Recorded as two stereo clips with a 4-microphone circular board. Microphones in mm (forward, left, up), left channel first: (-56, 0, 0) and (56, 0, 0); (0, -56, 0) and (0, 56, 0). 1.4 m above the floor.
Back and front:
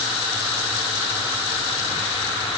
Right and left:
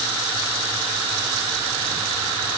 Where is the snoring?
I don't hear snoring.